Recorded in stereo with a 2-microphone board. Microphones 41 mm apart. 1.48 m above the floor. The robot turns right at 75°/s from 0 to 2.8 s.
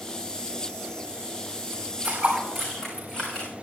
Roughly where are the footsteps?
Right.